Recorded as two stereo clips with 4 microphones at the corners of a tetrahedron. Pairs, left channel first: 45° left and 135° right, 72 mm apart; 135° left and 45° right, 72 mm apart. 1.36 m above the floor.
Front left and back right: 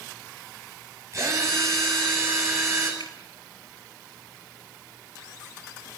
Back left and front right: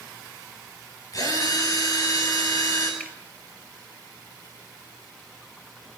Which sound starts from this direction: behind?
A drill, at 1.1 s.